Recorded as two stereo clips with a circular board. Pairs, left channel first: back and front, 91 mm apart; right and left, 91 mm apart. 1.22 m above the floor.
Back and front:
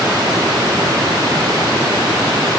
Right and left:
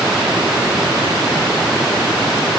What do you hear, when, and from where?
Only background noise.